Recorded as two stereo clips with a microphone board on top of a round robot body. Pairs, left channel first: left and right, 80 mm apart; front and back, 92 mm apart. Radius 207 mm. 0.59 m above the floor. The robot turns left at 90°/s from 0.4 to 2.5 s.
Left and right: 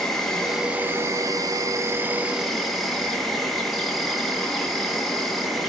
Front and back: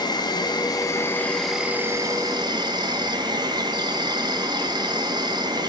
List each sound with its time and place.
0.0 s an insect: 10° left, 2 m; by 5.7 s straight behind, 2 m